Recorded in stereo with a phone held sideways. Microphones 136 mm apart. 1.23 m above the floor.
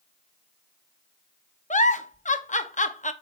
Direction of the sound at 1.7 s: 65° left (ahead or behind).